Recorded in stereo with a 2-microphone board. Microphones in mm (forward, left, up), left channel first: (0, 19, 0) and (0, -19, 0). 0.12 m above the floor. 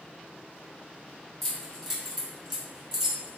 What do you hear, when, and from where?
1.4 s keys jangling: 10° left (ahead or behind), 1.2 m; by 3.4 s 10° right (ahead or behind), 1.1 m